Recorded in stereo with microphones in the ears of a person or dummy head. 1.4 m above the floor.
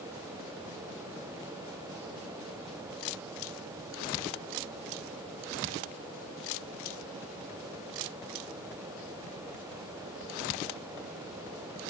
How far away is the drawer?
I don't hear a drawer.